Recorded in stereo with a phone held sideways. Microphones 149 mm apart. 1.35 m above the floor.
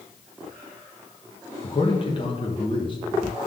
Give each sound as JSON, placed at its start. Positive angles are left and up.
{"t": 1.6, "sound": "a man speaking", "side_deg": 35, "distance_m": 1.3}